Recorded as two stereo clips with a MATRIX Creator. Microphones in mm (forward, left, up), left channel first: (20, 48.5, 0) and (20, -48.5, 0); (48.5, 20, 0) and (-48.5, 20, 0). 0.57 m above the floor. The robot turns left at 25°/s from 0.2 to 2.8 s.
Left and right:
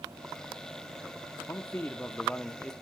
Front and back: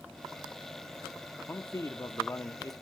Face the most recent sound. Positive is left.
turn(degrees=5)